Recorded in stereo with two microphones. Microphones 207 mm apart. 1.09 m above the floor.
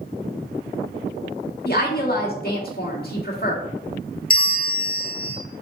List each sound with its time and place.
1.6 s a woman speaking: 50° left (ahead or behind), 1.9 m
4.3 s a bell: 45° left (ahead or behind), 1.0 m